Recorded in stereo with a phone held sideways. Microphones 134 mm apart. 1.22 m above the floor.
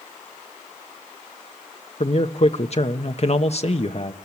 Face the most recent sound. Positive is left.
turn(degrees=50)  # may be behind; listen again after turning